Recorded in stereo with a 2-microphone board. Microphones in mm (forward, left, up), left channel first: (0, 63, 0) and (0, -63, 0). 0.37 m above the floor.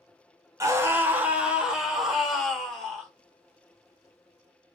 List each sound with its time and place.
0.6 s a scream: 25° right (ahead or behind), 0.9 m; by 3.1 s 5° left (ahead or behind), 1.8 m